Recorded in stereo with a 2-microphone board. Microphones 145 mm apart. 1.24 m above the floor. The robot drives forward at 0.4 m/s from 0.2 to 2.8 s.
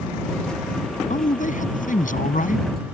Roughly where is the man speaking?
Left.